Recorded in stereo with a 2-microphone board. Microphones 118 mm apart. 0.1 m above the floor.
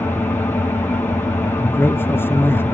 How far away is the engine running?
About 2 m.